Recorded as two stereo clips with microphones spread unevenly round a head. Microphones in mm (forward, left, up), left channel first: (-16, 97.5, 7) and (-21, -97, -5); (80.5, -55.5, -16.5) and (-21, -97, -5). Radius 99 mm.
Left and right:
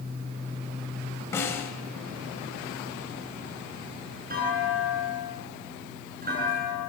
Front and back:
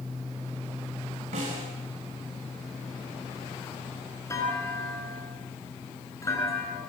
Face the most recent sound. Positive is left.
turn(degrees=-40)